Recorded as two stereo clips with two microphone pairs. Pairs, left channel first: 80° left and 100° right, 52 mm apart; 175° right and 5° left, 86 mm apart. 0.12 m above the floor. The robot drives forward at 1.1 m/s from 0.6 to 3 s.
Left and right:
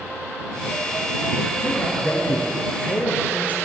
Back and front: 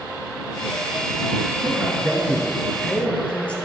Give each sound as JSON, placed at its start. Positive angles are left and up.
{"t": 1.6, "sound": "a man speaking", "azimuth_deg": 45, "distance_m": 1.9}